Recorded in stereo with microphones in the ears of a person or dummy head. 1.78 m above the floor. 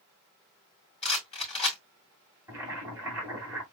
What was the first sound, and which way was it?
A rattle, 30° left (ahead or behind).